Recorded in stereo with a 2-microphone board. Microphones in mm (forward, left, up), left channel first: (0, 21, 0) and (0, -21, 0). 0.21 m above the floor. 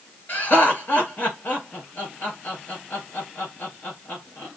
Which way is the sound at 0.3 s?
45° left (ahead or behind).